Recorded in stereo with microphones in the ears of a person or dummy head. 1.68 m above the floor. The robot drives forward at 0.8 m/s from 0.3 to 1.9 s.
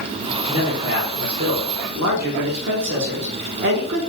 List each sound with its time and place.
0.5 s a man speaking: 45° right (ahead or behind), 1.2 m; by 4.1 s 60° right (ahead or behind), 0.9 m